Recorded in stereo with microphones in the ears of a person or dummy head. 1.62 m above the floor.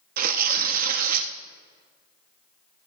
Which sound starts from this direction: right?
Tearing paper, at 0.2 s.